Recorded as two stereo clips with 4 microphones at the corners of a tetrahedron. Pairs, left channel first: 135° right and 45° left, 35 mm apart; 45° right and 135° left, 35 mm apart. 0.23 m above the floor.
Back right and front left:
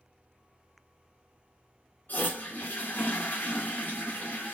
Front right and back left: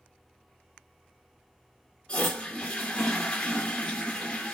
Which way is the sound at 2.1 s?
105° right.